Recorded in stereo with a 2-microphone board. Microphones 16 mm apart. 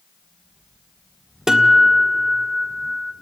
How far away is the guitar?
About 1.3 m.